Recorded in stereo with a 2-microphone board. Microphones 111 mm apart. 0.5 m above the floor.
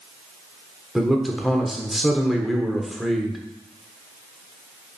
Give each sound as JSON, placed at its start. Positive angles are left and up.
{"t": 0.9, "sound": "a man speaking", "side_deg": 0, "distance_m": 1.3}